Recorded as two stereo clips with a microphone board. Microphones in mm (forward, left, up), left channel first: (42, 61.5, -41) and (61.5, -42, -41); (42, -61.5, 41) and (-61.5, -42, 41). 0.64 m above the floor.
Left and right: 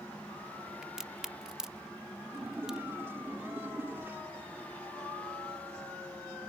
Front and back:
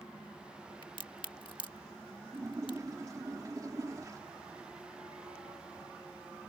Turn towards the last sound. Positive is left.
turn(degrees=-140)